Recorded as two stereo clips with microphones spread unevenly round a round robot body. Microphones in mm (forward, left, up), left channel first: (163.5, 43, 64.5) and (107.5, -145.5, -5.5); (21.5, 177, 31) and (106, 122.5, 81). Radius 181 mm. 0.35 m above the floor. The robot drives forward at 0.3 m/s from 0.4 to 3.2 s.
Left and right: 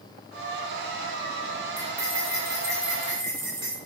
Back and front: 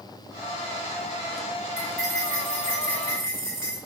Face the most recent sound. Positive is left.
turn(degrees=-170)